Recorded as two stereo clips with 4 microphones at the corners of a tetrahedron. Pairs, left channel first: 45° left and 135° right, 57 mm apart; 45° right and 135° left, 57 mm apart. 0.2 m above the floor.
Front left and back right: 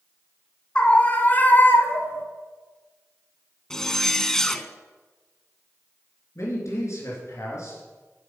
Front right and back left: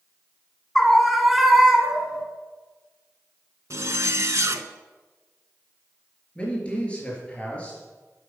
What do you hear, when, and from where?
0.8 s a scream: 25° left, 1.3 m; by 2.2 s 65° left, 1.7 m
3.7 s a zipper: 125° left, 0.6 m
6.3 s a man speaking: 20° left, 3.5 m